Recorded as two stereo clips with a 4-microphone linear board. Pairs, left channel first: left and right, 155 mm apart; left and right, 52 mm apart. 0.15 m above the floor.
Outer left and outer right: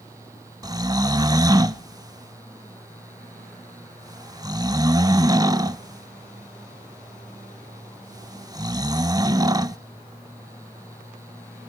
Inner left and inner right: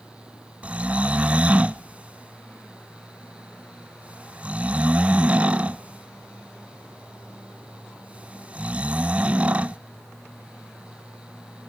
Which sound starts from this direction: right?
Snoring, at 0.6 s.